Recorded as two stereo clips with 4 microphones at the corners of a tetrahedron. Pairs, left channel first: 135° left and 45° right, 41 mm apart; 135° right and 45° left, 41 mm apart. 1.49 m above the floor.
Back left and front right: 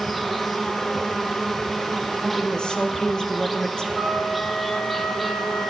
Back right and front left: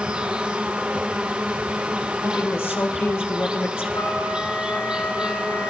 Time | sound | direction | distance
0.0 | an insect | 45° left | 0.8 m
2.2 | a woman speaking | 155° right | 1.5 m
3.9 | a flute | 130° right | 3 m